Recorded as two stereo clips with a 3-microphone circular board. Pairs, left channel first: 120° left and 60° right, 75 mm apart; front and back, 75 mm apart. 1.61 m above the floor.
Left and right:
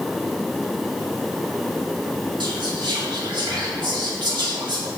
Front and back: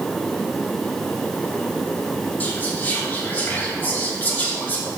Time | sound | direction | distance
2.4 | whispering | 65° right | 2 m